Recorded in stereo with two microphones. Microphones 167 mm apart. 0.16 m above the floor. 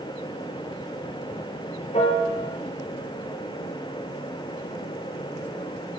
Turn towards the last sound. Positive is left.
turn(degrees=40)  # may be behind; listen again after turning